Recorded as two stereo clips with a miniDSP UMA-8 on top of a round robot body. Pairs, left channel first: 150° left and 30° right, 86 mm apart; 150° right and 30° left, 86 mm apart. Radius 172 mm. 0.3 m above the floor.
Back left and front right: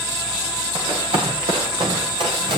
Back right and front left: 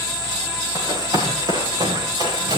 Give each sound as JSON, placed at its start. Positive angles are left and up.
{"t": 0.8, "sound": "running footsteps", "azimuth_deg": -15, "distance_m": 9.5}